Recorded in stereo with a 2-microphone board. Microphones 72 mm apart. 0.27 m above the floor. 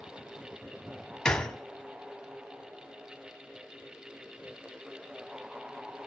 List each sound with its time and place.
1.2 s a gunshot: 10° left (ahead or behind), 0.9 m